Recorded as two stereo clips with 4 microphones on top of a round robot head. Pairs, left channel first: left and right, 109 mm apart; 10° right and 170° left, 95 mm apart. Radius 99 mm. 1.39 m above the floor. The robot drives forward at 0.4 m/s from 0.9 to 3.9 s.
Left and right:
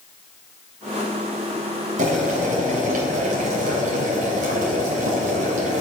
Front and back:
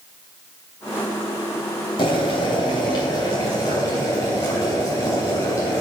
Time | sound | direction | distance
2.0 | boiling | 60° right | 3 m